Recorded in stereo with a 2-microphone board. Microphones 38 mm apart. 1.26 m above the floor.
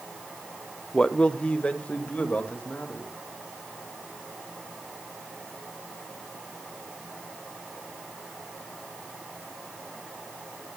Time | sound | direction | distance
0.9 | a man speaking | 20° left (ahead or behind) | 0.7 m